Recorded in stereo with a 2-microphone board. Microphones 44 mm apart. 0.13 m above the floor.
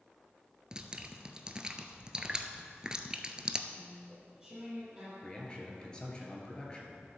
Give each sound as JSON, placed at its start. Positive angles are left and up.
{"t": 0.7, "sound": "dripping", "side_deg": -15, "distance_m": 0.7}
{"t": 3.7, "sound": "chewing", "side_deg": -10, "distance_m": 4.0}
{"t": 5.2, "sound": "a man speaking", "side_deg": 20, "distance_m": 2.0}